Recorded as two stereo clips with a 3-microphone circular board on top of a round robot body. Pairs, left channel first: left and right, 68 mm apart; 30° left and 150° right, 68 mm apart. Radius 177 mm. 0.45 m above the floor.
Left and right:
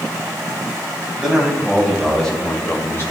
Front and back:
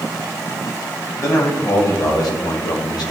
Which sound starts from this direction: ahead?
A man speaking, at 1.2 s.